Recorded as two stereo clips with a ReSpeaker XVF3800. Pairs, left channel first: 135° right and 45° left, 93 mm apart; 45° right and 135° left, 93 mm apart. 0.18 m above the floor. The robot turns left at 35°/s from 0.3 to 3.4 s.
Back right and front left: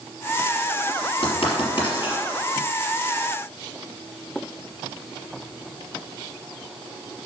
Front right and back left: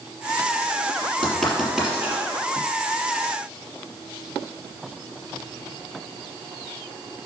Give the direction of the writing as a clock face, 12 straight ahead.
4 o'clock.